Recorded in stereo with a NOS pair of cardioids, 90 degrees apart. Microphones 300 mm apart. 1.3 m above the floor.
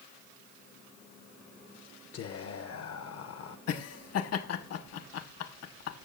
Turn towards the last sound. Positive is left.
turn(degrees=60)